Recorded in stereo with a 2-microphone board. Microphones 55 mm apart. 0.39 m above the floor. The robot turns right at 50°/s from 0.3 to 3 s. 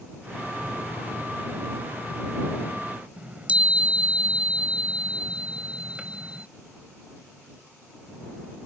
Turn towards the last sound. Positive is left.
turn(degrees=-25)  # may be behind; listen again after turning